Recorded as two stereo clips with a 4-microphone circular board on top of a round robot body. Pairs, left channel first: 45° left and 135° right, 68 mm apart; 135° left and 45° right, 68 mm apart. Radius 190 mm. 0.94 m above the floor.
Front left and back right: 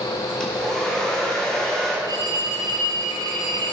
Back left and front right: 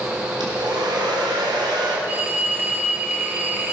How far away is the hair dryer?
About 3 m.